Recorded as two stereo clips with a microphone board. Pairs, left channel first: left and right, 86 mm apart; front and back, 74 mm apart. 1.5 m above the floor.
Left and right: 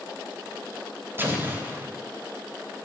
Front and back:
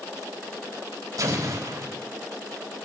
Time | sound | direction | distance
1.2 | an explosion | 150° right | 3.5 m